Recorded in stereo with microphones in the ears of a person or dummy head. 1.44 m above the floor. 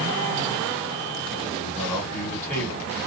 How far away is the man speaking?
About 1.3 m.